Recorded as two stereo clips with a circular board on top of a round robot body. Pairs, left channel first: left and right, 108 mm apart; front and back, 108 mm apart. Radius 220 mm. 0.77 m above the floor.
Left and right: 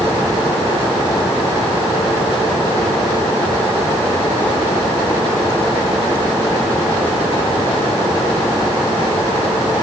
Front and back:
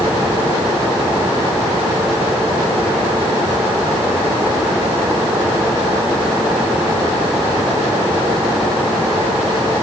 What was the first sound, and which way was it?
Only background noise.